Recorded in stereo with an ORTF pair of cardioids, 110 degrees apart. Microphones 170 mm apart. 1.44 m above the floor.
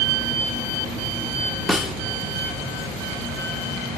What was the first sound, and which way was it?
A snare drum, straight ahead.